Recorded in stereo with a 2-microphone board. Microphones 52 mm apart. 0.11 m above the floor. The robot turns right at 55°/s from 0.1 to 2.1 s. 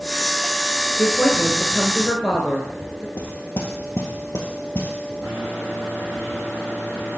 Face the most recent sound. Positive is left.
turn(degrees=25)  # may be behind; listen again after turning